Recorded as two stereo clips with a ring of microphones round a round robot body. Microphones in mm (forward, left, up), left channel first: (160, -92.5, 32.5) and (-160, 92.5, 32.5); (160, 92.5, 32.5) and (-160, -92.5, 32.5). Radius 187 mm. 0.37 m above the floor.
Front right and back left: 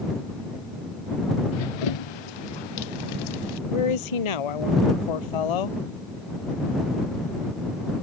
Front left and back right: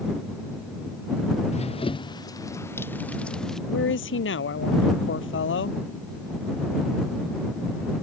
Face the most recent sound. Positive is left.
turn(degrees=-30)